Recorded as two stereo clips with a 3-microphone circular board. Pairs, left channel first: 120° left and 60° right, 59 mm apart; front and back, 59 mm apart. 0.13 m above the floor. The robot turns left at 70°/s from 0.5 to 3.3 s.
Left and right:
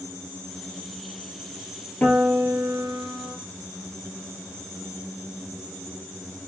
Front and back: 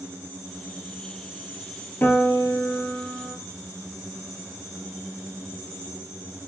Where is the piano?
55° left, 0.7 m; by 3.4 s 35° right, 0.7 m.